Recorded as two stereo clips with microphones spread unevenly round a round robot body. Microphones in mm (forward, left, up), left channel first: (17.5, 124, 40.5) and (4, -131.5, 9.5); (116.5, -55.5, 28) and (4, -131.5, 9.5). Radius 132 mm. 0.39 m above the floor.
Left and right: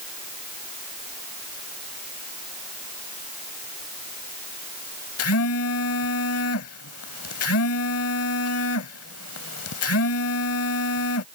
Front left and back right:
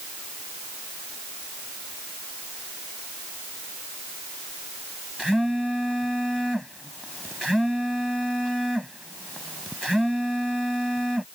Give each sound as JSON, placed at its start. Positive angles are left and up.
{"t": 5.2, "sound": "a phone buzzing", "azimuth_deg": 125}